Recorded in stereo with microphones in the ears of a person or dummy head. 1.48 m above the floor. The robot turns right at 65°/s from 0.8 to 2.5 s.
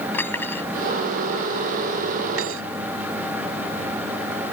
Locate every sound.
0.1 s cutlery clinking: 15° left (ahead or behind); by 2.6 s 85° right